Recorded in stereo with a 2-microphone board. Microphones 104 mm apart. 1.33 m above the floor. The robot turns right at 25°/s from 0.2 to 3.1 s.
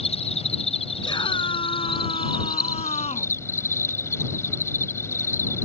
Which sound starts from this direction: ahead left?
A scream, at 1.0 s.